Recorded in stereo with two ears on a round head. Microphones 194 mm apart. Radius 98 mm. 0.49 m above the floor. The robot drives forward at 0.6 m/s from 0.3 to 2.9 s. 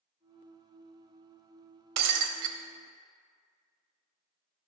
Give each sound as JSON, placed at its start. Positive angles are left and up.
{"t": 2.0, "sound": "breaking glass", "side_deg": -85, "distance_m": 0.9}